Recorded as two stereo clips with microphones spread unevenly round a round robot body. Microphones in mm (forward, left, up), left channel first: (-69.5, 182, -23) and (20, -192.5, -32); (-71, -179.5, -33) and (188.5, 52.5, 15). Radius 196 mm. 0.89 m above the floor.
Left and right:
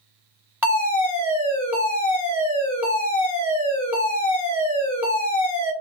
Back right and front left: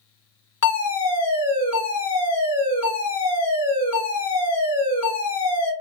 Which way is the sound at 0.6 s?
160° right.